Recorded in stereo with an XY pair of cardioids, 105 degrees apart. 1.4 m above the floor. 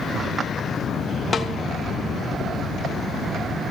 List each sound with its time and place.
1.3 s a snare drum: 35° left, 1.9 m